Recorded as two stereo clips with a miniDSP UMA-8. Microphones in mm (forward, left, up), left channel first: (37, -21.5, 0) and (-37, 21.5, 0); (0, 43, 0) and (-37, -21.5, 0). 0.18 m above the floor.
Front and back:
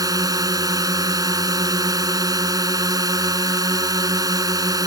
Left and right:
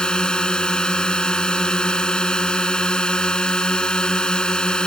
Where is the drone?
135° left.